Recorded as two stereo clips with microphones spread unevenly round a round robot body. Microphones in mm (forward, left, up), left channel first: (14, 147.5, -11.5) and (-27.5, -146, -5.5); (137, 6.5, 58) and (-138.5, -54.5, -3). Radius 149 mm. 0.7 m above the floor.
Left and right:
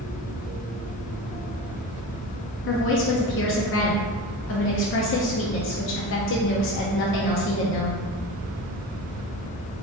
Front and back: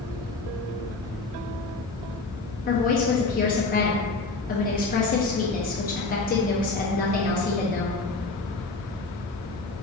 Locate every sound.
2.7 s a woman speaking: 75° left, 0.6 m